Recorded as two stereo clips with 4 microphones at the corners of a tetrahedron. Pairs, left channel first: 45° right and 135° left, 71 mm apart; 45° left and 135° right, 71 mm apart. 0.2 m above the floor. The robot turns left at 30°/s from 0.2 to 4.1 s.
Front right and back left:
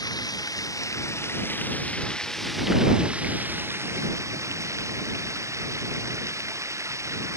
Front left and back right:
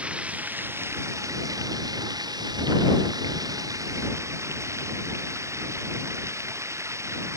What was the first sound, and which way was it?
Running water, 65° right.